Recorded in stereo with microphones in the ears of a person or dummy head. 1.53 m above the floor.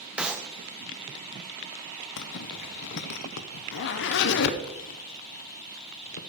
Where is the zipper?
60° left (ahead or behind), 0.7 m.